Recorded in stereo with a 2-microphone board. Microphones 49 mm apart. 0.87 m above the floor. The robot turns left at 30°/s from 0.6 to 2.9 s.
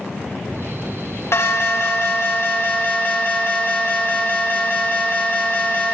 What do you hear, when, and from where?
1.3 s an alarm: 95° left, 2 m; by 5.9 s 45° left, 2 m